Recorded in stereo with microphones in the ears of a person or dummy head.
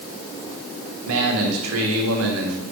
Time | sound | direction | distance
1.1 | a man speaking | 80° right | 2 m